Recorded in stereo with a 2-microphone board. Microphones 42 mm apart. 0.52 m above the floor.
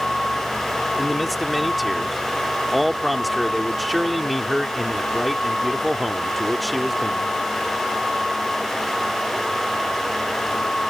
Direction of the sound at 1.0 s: Centre (ahead or behind).